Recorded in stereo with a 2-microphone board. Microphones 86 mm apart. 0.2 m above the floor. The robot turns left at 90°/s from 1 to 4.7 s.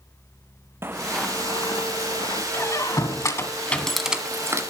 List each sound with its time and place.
0.8 s footsteps: 30° right (ahead or behind), 1.0 m; by 2.4 s 45° left (ahead or behind), 2 m
2.5 s a squeak: 30° left (ahead or behind), 1.3 m; by 4.6 s 35° right (ahead or behind), 1.3 m